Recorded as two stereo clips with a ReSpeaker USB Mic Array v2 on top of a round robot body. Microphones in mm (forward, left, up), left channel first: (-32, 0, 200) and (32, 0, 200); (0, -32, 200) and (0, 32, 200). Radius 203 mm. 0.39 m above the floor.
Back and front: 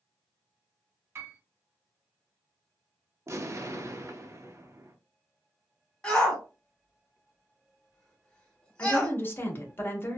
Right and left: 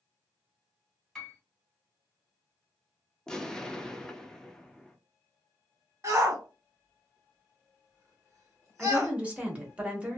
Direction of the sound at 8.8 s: 150° left.